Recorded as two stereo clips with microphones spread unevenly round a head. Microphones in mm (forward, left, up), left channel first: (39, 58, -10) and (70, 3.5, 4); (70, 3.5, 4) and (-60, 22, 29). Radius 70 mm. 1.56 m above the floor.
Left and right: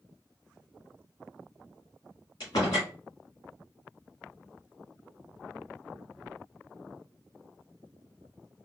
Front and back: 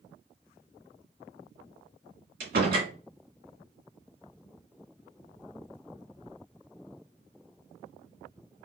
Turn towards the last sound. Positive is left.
turn(degrees=180)